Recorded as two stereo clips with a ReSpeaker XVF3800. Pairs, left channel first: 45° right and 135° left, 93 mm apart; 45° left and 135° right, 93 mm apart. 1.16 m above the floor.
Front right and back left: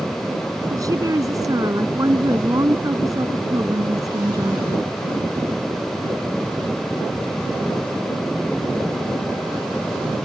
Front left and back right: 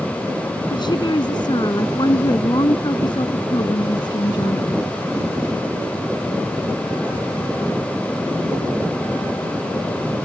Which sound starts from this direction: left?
A woman speaking, at 0.7 s.